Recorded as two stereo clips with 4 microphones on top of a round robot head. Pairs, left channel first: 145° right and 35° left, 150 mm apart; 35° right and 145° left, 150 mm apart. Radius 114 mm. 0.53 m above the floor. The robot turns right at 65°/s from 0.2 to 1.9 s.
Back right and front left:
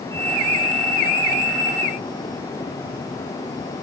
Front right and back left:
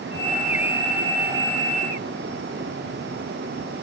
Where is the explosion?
I don't hear an explosion.